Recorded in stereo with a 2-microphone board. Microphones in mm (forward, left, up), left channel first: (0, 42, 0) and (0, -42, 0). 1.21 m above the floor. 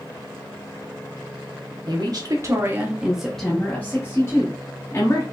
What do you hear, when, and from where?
1.9 s a woman speaking: 60° right (ahead or behind), 1.3 m; by 5.2 s 45° left (ahead or behind), 2 m